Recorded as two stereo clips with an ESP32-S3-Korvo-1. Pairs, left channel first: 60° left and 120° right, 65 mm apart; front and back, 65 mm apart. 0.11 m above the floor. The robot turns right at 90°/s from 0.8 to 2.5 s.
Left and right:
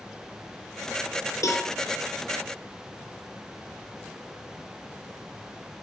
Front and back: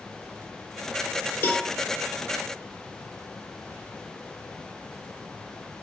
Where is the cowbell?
50° left, 1.6 m; by 1.7 s 70° left, 1.6 m.